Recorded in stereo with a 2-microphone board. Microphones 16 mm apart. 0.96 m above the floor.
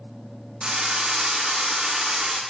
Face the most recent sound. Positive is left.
turn(degrees=-70)  # may be behind; listen again after turning